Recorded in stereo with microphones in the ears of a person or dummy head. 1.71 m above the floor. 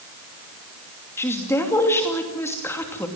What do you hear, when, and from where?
1.2 s a woman speaking: 15° left (ahead or behind), 2.5 m